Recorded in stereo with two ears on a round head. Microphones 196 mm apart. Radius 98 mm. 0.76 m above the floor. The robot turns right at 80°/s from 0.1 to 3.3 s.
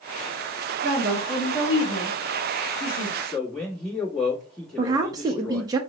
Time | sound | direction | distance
0.8 | a woman speaking | 45° right | 1.6 m
3.2 | a man speaking | 10° left (ahead or behind) | 1.4 m
4.8 | a woman speaking | 20° right (ahead or behind) | 0.6 m